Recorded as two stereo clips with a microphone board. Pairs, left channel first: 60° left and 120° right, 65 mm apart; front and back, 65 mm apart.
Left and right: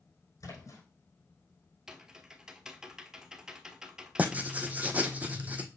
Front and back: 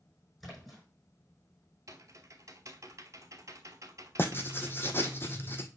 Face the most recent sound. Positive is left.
turn(degrees=-55)